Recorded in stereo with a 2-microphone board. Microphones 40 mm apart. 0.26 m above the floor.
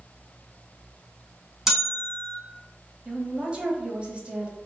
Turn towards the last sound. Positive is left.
turn(degrees=-30)  # may be behind; listen again after turning